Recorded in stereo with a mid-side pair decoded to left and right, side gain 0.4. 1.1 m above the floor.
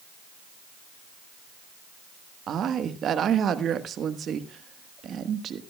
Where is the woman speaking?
65° right, 1.3 m.